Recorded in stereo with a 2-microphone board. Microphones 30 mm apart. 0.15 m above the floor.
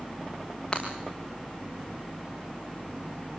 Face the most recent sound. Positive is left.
turn(degrees=20)  # may be behind; listen again after turning